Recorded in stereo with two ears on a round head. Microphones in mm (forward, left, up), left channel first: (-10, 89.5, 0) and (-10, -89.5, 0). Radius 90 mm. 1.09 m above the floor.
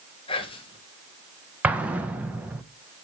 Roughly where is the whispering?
Left.